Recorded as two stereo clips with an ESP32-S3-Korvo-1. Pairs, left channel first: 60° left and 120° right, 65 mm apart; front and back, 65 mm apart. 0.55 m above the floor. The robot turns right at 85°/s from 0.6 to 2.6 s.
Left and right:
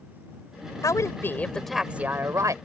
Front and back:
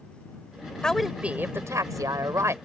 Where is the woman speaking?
75° left; by 2.5 s 140° right.